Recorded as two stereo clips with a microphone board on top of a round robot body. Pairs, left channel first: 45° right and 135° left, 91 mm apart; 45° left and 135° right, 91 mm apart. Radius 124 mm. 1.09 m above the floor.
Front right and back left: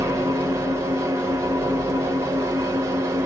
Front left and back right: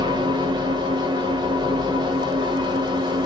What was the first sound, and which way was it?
An engine running, 170° right.